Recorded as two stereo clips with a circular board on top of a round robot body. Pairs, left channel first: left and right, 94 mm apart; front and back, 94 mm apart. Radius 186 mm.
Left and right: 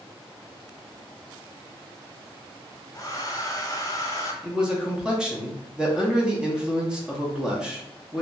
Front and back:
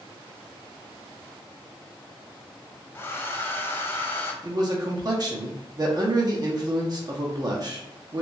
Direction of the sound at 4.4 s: 165° right.